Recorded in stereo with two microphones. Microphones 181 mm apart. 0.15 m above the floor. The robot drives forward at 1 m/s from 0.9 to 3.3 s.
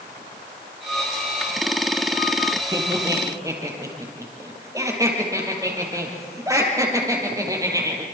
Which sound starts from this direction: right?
Laughter, at 2.7 s.